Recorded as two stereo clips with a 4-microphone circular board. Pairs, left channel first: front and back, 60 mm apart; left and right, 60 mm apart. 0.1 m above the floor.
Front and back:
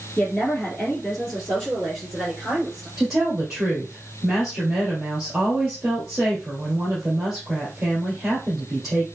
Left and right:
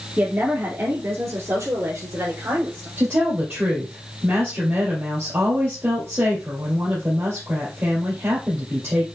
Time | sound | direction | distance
0.2 | a woman speaking | 75° right | 1.5 m
3.0 | a woman speaking | 100° right | 2 m